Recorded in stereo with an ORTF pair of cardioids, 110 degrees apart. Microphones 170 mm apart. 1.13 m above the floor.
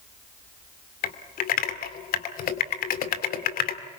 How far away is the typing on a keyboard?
About 1.9 m.